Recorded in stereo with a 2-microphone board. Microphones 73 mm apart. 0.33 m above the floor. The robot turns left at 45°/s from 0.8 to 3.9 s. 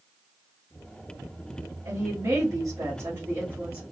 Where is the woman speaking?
60° right, 1.9 m; by 3.8 s 150° right, 1.9 m.